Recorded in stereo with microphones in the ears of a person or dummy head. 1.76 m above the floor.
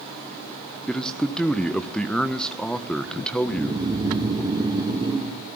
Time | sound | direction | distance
0.9 | a man speaking | 5° left (ahead or behind) | 1.5 m
3.4 | snoring | 30° right (ahead or behind) | 2 m